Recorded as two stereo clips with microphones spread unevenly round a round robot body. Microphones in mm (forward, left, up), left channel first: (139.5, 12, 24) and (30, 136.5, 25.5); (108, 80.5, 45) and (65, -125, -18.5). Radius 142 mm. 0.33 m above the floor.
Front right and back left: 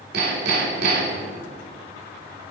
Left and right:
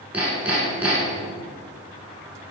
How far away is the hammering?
About 1.1 m.